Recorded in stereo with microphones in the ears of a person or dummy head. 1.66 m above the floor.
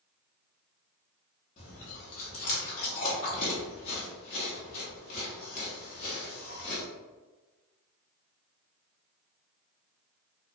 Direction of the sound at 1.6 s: 40° left (ahead or behind).